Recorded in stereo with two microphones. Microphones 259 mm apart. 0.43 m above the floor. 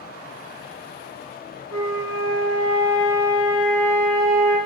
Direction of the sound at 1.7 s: 70° right (ahead or behind).